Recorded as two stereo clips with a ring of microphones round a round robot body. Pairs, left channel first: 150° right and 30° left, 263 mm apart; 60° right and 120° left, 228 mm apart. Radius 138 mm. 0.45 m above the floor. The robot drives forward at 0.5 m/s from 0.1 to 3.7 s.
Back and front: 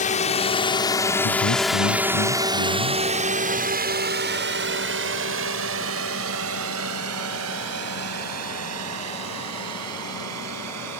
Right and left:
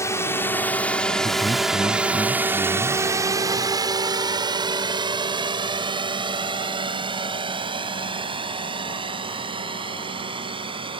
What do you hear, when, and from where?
0.0 s a drone: 125° right; by 11.0 s 55° left
1.2 s a man speaking: 140° right; by 3.0 s 145° right